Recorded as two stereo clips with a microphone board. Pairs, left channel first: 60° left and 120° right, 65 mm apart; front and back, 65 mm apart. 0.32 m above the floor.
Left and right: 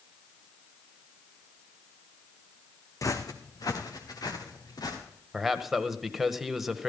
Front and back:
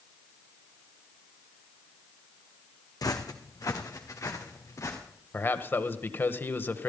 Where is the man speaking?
35° right, 1.3 m.